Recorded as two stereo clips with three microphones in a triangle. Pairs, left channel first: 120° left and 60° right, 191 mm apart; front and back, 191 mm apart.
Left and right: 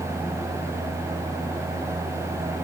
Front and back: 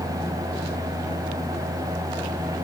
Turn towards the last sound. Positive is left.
No sound to turn to.